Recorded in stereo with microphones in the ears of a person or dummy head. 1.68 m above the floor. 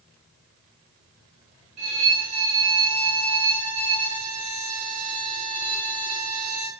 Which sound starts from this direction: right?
A violin, at 1.8 s.